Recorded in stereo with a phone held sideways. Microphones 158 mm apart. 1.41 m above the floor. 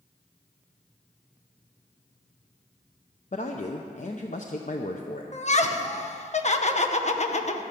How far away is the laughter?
About 0.9 m.